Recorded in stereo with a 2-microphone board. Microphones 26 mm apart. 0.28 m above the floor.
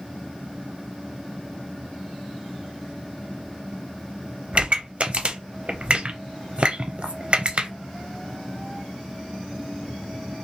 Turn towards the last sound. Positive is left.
turn(degrees=-40)  # may be behind; listen again after turning